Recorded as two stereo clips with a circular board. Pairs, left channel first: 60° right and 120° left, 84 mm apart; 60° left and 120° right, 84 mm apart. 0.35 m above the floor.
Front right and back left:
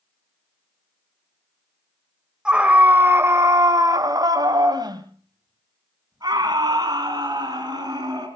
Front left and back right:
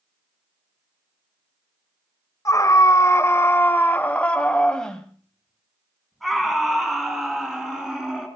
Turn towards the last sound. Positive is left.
turn(degrees=155)